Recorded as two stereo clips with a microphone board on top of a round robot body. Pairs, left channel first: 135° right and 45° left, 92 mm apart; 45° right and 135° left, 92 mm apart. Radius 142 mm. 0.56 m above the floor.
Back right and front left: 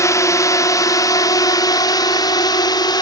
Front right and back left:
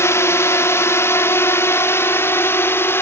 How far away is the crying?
I don't hear crying.